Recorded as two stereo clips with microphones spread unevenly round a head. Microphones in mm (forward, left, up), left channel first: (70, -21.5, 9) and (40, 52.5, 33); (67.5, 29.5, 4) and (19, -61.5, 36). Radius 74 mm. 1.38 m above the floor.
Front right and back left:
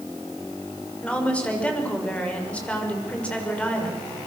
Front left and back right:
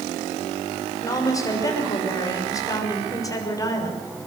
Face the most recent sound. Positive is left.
turn(degrees=5)